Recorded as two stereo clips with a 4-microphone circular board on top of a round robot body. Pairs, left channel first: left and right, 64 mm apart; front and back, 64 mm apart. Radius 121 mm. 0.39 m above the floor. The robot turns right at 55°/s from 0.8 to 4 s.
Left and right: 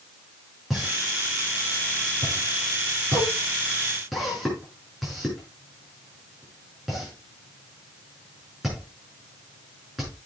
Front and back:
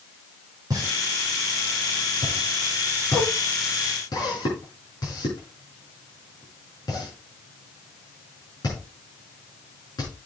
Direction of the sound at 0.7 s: 175° right.